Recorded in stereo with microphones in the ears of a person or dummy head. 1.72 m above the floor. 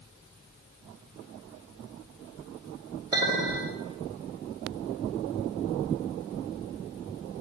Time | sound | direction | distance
3.1 | a clink | 20° right (ahead or behind) | 2 m